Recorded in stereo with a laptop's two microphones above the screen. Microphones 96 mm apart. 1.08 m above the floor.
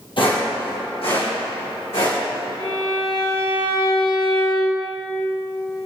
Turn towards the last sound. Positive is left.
turn(degrees=50)  # may be behind; listen again after turning